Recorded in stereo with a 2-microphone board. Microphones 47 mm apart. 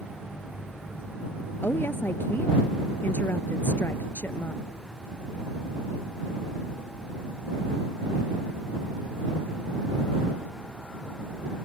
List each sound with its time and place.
1.6 s a woman speaking: 50° left (ahead or behind)